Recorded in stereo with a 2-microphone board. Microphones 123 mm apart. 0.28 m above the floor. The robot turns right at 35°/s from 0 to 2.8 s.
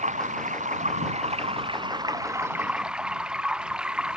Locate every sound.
0.0 s running water: 105° right; by 4.2 s 5° right